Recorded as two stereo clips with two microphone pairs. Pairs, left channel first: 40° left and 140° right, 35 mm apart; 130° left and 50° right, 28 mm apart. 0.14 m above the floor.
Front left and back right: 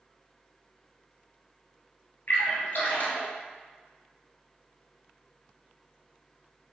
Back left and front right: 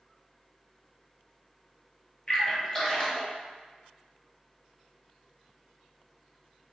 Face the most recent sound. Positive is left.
turn(degrees=70)